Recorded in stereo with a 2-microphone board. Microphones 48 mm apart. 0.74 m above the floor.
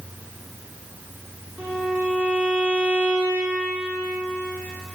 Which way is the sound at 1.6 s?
40° right (ahead or behind).